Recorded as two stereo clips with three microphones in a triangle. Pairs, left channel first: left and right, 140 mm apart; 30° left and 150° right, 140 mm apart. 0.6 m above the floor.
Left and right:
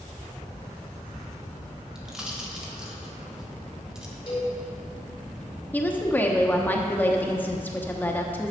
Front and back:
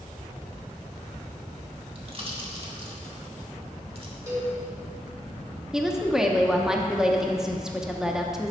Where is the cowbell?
145° left, 3.5 m.